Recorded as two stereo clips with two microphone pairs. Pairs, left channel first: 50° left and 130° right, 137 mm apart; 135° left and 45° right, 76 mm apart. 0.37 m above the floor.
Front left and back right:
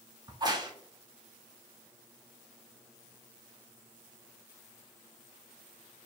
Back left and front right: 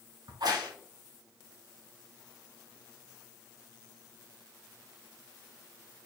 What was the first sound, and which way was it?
A crack, 70° right.